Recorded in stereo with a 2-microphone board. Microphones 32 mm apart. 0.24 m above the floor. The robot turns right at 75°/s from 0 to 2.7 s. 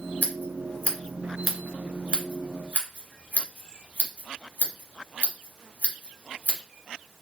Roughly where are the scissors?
Left.